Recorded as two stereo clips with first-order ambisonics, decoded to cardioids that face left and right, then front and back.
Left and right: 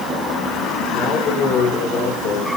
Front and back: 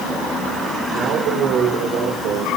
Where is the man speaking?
135° left, 5 m.